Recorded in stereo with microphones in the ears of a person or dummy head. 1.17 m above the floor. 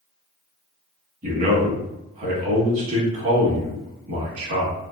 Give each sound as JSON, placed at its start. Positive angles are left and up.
{"t": 1.2, "sound": "a man speaking", "side_deg": -40, "distance_m": 1.2}